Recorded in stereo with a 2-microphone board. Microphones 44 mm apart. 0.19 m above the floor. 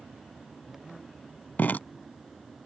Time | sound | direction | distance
1.6 | dripping | 40° left (ahead or behind) | ?